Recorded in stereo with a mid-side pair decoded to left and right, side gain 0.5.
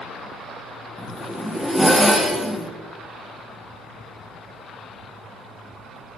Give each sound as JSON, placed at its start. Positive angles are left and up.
{"t": 1.0, "sound": "a zipper", "azimuth_deg": 0, "distance_m": 1.3}